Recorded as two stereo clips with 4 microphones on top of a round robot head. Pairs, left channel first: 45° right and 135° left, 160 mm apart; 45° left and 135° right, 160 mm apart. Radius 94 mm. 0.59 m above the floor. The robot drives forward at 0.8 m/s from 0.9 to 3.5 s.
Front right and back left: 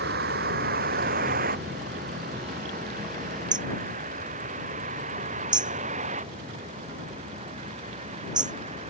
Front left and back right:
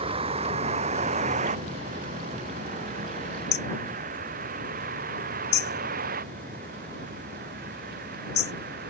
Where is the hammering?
70° left.